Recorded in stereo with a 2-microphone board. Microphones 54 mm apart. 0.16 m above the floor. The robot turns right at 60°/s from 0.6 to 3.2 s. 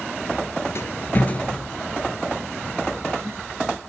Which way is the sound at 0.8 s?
60° left (ahead or behind).